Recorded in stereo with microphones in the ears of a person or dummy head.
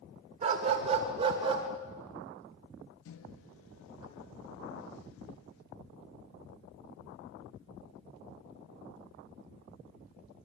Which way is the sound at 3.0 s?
85° left.